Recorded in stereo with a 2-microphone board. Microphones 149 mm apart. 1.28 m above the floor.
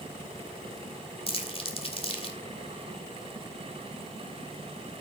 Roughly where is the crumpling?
Left.